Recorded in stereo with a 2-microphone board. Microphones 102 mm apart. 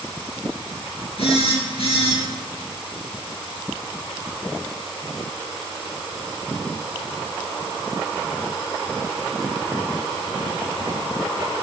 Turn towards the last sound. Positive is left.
turn(degrees=70)  # may be behind; listen again after turning